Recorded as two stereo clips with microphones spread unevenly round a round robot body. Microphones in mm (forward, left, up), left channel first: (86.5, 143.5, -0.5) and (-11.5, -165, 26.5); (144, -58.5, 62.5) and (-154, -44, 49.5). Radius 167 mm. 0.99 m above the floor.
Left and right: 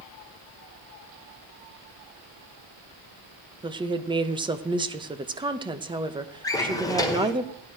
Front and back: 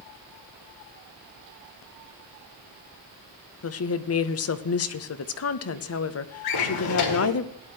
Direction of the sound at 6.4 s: 10° right.